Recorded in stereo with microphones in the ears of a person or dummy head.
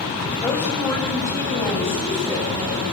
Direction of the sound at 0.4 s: 15° left (ahead or behind).